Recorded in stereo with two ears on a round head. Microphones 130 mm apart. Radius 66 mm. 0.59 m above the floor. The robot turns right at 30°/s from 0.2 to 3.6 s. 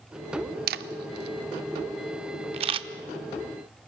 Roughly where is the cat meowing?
No cat meowing in this recording.